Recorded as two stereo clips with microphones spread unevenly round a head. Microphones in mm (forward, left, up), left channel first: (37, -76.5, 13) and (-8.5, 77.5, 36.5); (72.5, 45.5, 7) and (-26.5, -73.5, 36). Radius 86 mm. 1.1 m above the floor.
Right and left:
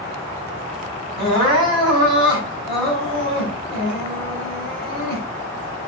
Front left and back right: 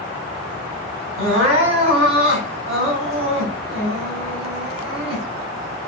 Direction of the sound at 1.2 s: 170° left.